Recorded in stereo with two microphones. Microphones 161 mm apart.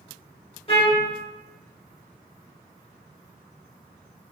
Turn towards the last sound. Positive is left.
turn(degrees=35)  # may be behind; listen again after turning